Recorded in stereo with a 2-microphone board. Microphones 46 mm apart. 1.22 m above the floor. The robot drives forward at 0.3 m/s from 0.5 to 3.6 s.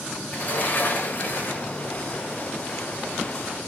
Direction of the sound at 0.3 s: 40° left (ahead or behind).